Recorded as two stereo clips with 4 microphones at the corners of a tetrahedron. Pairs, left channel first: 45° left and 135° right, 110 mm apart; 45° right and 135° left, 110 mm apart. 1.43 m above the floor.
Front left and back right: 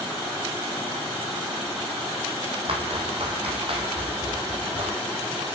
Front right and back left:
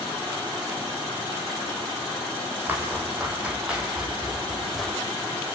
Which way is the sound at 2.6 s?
155° right.